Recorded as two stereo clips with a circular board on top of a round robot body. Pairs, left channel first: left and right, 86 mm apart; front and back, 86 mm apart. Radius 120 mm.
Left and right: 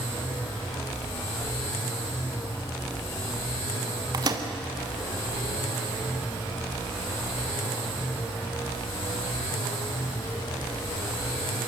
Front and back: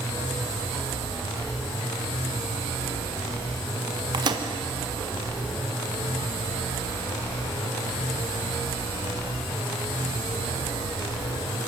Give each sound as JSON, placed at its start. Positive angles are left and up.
{"t": 4.1, "sound": "a microwave", "azimuth_deg": -140, "distance_m": 1.4}